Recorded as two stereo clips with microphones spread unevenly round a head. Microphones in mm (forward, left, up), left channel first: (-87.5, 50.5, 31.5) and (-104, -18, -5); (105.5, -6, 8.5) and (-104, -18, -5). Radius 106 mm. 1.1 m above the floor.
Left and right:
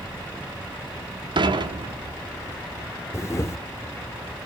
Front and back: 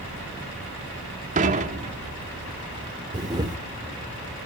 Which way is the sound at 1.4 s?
120° right.